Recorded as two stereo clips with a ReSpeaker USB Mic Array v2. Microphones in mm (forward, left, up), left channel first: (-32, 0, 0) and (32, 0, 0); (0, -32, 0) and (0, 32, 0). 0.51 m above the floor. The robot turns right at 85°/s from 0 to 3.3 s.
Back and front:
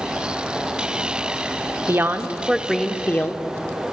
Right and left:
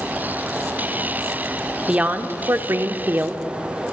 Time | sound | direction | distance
1.9 | a woman speaking | 25° left | 0.8 m